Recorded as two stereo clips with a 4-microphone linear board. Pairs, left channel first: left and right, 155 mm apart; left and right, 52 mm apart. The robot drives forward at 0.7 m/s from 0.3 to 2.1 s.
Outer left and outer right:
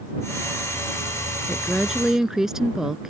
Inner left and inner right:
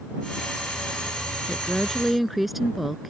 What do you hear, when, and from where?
1.5 s a woman speaking: 5° right (ahead or behind)